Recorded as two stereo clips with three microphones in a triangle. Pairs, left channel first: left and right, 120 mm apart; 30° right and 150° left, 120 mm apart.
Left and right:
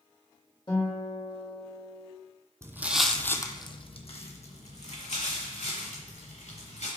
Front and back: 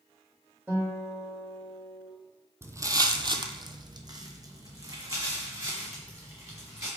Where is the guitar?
90° left, 1.4 m.